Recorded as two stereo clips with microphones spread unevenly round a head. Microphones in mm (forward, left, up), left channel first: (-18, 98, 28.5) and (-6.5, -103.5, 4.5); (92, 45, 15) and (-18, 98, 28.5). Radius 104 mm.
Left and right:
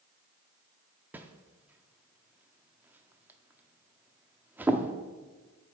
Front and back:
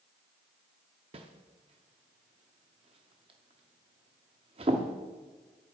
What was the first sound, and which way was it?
A whoosh, 170° right.